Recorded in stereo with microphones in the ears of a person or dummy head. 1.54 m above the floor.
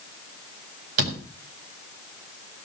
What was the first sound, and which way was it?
A door slam, 60° right (ahead or behind).